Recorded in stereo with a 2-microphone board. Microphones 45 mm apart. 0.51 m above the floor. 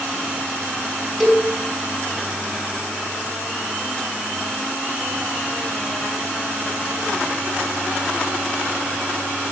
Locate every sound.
1.2 s a cowbell: 5° left (ahead or behind), 3.5 m